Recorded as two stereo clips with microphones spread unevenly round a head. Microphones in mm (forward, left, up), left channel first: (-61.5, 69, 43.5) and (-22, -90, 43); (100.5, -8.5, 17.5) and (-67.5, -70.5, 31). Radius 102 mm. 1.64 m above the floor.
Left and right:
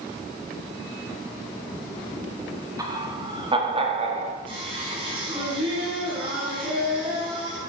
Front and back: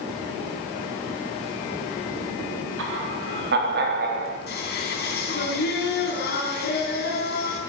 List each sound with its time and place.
2.8 s laughter: 145° right, 4.5 m; by 4.4 s 125° right, 4.5 m
4.5 s singing: 10° right, 4.5 m